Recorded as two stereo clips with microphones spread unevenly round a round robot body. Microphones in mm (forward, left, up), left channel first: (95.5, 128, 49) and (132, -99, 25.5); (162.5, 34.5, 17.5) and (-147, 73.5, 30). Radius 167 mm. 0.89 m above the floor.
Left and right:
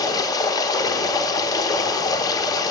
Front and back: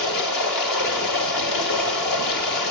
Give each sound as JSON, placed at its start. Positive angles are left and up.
{"t": 0.0, "sound": "running water", "azimuth_deg": 25, "distance_m": 1.0}